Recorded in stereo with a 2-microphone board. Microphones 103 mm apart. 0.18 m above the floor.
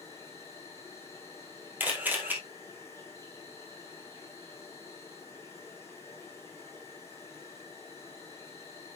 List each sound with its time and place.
0.0 s an insect: 25° left (ahead or behind), 2.5 m
1.8 s a camera shutter: 15° right (ahead or behind), 2.5 m